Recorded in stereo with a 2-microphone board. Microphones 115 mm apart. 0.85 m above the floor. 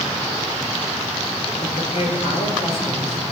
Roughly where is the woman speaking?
Left.